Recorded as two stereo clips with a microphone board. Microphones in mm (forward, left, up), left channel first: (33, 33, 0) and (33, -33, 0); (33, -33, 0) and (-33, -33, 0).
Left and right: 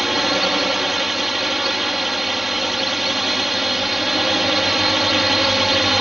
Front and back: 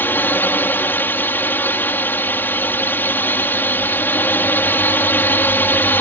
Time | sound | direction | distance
0.0 | a drone | 5° right | ?